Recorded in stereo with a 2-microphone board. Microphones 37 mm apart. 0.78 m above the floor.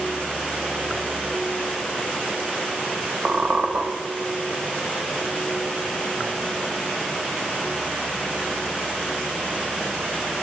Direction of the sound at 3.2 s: 55° right (ahead or behind).